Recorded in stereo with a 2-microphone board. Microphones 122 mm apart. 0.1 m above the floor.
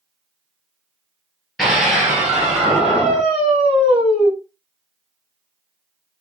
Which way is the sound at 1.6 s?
Centre (ahead or behind).